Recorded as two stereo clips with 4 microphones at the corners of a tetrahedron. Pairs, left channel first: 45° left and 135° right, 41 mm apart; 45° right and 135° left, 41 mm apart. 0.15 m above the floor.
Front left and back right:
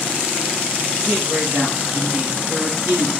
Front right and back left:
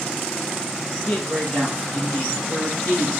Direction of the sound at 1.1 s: 95° right.